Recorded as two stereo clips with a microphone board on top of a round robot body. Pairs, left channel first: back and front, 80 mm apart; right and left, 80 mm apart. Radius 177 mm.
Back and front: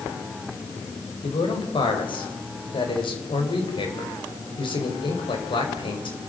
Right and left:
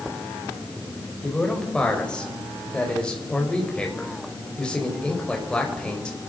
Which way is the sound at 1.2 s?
170° right.